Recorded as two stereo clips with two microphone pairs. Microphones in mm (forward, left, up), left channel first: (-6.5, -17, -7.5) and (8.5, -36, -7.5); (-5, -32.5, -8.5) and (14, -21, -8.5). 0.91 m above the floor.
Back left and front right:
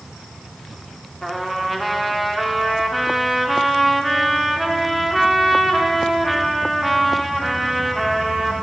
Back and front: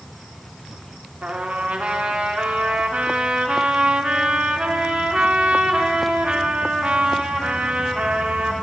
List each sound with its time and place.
1.2 s a trumpet: 30° left, 1.0 m